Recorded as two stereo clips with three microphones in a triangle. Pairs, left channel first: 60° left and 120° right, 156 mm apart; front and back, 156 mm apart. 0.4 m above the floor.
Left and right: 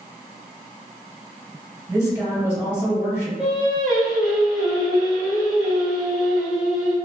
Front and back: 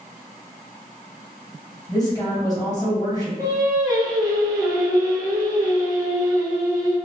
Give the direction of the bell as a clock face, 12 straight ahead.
No bell in this recording.